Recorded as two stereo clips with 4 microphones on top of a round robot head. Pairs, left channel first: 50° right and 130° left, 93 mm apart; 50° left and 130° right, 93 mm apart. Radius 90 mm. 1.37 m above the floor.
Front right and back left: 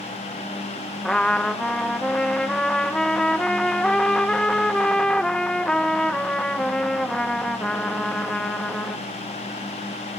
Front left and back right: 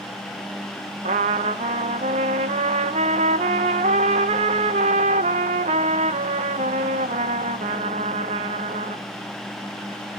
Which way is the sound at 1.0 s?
130° right.